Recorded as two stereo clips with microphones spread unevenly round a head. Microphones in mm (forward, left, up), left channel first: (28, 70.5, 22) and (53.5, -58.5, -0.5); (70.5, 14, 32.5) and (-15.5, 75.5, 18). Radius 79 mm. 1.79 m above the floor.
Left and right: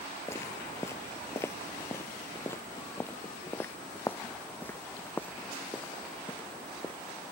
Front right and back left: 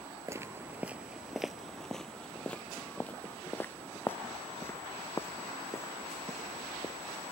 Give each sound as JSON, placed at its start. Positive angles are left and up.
{"t": 0.3, "sound": "footsteps", "azimuth_deg": 95}